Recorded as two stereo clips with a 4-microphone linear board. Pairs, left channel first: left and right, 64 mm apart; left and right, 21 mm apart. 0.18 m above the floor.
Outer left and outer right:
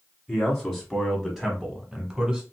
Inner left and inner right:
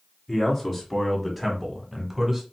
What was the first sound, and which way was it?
A man speaking, 5° left (ahead or behind).